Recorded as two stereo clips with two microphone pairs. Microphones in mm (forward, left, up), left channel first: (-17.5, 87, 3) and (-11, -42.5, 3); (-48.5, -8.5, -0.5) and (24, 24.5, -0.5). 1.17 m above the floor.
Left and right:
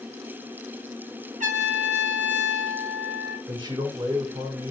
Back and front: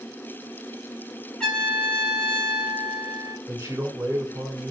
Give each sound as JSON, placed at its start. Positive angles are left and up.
{"t": 1.4, "sound": "a trumpet", "azimuth_deg": -75, "distance_m": 6.5}
{"t": 3.5, "sound": "a man speaking", "azimuth_deg": -30, "distance_m": 4.0}